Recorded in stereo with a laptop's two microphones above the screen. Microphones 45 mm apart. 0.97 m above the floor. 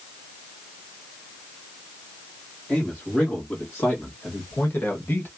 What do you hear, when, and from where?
2.7 s a man speaking: 35° left (ahead or behind), 2 m; by 5.3 s 55° left (ahead or behind), 1.3 m